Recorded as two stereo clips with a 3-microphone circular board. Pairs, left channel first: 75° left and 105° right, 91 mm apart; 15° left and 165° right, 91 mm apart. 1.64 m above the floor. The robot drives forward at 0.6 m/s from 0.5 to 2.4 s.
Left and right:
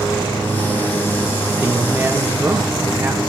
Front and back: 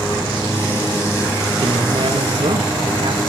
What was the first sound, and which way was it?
A man speaking, 175° right.